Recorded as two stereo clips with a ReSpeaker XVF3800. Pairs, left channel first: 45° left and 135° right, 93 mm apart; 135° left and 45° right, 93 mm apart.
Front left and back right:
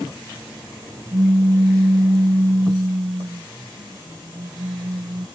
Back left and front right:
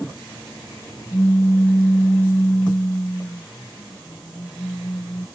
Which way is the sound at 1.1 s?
165° right.